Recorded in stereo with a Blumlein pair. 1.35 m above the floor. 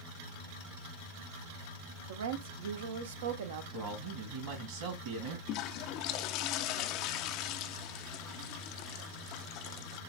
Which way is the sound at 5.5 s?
40° left.